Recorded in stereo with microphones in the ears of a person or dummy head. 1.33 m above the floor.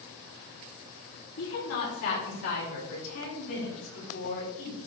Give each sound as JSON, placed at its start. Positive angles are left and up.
{"t": 1.4, "sound": "a woman speaking", "side_deg": 70, "distance_m": 3.5}